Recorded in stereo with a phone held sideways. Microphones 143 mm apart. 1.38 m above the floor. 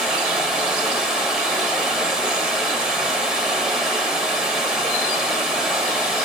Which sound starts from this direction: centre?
Running water, at 0.0 s.